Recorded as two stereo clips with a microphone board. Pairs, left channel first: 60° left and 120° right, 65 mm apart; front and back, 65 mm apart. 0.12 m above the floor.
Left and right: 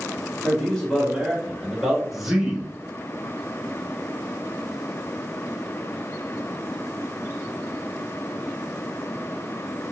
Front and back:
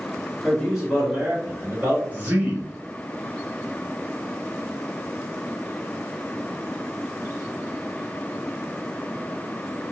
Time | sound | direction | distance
0.4 | a man speaking | 95° left | 1.5 m
2.1 | a man speaking | 155° left | 1.1 m